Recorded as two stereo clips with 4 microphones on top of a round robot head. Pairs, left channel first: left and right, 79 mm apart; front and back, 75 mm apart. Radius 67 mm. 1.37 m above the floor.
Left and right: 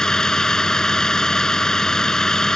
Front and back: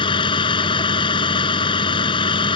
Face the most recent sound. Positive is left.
turn(degrees=5)